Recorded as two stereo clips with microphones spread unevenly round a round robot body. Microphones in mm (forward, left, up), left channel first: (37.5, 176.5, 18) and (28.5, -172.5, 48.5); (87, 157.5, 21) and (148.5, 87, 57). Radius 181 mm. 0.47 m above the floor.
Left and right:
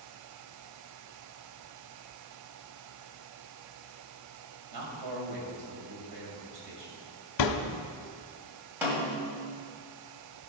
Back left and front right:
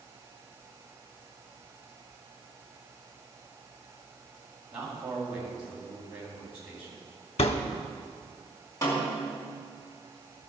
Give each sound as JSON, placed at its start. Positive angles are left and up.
{"t": 4.7, "sound": "a man speaking", "azimuth_deg": -110, "distance_m": 3.5}
{"t": 7.4, "sound": "a thud", "azimuth_deg": 130, "distance_m": 0.7}
{"t": 8.8, "sound": "a snare drum", "azimuth_deg": -175, "distance_m": 2.0}